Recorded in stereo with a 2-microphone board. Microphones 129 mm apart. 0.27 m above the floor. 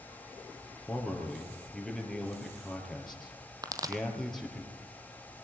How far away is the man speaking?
About 5 m.